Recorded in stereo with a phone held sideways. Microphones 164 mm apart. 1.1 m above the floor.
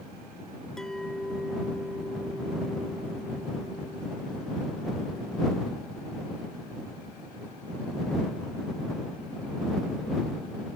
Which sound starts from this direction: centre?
A clink, at 0.8 s.